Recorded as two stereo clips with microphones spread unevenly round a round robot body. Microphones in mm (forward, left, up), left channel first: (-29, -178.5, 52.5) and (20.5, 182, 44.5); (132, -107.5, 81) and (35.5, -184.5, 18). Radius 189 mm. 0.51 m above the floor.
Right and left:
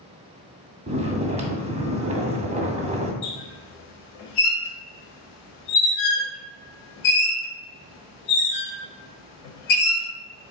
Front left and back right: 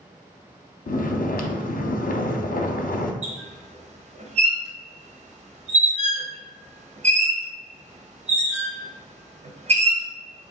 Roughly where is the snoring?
Ahead.